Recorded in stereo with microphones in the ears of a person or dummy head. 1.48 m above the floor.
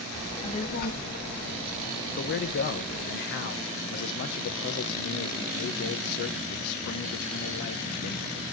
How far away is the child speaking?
About 1.5 m.